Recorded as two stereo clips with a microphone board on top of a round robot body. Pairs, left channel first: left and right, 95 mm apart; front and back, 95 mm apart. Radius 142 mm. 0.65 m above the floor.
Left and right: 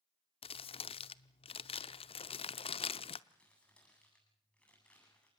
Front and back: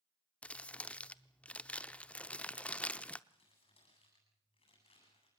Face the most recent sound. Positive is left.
turn(degrees=15)